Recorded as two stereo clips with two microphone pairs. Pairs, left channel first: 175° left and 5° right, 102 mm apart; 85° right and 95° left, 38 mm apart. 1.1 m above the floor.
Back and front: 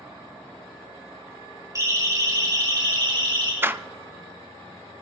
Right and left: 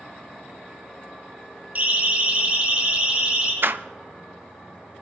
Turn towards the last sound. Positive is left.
turn(degrees=65)